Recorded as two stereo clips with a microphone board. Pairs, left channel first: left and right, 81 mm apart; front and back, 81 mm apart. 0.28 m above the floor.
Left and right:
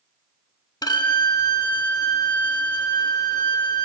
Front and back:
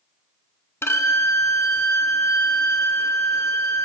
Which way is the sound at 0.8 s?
55° left.